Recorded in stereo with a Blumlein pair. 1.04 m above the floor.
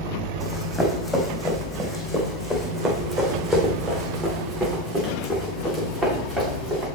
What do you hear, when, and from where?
0.4 s running footsteps: 5° left, 3.5 m; by 6.8 s 20° right, 6.5 m